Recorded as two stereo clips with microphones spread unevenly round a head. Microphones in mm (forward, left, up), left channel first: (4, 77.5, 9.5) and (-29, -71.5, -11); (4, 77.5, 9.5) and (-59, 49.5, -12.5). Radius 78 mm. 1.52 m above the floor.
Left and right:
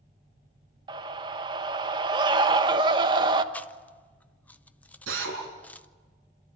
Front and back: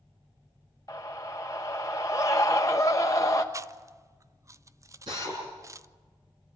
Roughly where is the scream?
Ahead right.